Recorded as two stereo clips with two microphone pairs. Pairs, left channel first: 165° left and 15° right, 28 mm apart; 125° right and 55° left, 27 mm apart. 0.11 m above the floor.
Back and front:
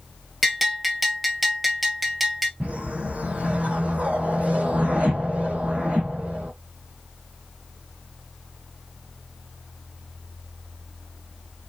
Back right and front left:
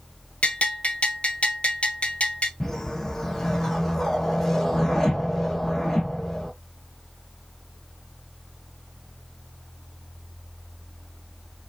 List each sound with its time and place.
0.4 s a bell: 100° right, 0.9 m
2.6 s a whoosh: 50° right, 1.2 m